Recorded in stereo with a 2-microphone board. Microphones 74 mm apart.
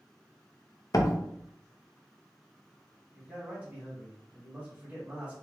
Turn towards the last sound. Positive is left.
turn(degrees=-15)  # may be behind; listen again after turning